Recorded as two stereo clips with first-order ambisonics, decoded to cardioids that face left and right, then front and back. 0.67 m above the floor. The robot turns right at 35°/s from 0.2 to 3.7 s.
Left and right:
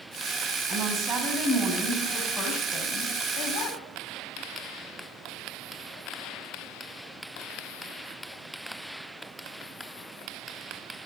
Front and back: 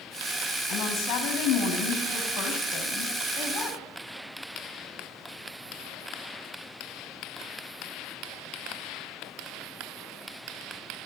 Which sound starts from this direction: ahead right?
A woman speaking, at 0.7 s.